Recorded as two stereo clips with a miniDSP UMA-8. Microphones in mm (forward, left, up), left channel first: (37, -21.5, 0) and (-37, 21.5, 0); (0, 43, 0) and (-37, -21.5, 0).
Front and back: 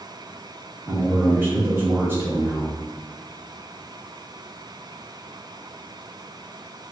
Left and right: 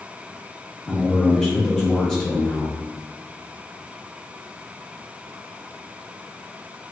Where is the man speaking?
135° left, 1.3 m.